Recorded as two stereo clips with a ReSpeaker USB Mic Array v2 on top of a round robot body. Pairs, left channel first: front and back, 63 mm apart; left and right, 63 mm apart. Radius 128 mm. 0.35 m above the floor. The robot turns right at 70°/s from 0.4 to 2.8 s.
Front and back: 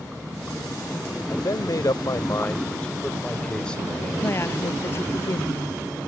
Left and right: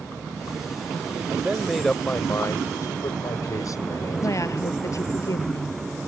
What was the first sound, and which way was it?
A man speaking, 30° right.